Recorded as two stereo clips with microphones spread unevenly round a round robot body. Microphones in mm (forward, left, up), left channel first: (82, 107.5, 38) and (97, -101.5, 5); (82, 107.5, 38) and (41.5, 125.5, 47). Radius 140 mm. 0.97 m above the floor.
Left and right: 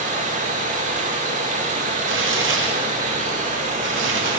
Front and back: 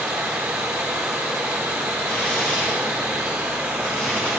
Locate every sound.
0.0 s running water: 155° right, 0.8 m
2.1 s tearing paper: 80° right, 2 m